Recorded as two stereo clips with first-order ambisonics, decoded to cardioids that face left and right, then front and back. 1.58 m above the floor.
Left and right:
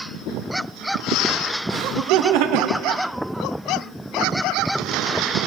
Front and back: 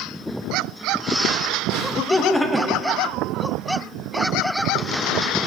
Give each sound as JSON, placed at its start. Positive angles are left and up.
{"t": 1.7, "sound": "laughter", "azimuth_deg": -55, "distance_m": 1.3}